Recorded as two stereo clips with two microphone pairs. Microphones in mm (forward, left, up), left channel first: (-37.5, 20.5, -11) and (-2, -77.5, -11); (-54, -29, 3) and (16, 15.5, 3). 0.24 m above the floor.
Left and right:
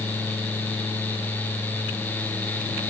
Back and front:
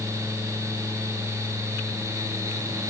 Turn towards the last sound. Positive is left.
No sound to turn to.